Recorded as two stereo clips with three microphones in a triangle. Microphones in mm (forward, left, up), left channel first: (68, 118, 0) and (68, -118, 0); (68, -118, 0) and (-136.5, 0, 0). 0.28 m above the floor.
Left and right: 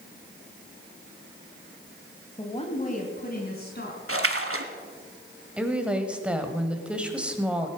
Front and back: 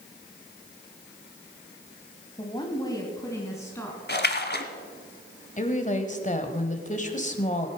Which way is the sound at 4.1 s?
75° right.